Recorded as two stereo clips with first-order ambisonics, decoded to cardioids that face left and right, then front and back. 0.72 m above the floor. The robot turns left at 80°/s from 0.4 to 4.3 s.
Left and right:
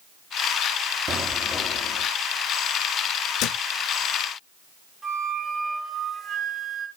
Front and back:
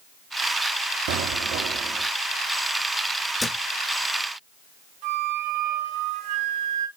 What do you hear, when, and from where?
1.1 s an explosion: 165° right, 1.5 m; by 2.1 s 115° left, 1.5 m
3.4 s a thud: 80° left, 0.5 m; by 3.6 s 65° left, 0.5 m
5.0 s a flute: 170° right, 3.5 m